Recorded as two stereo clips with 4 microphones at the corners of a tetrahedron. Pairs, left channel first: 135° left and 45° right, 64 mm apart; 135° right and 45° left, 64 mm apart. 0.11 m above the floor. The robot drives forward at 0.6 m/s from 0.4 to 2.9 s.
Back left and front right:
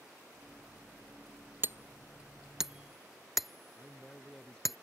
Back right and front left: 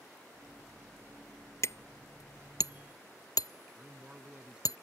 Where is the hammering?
95° right; by 4.8 s 135° right.